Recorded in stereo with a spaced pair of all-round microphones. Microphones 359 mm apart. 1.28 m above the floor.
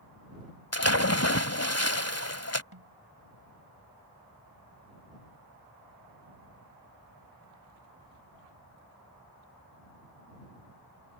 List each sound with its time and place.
0.7 s a splash: 40° left (ahead or behind)
2.7 s a snare drum: 80° right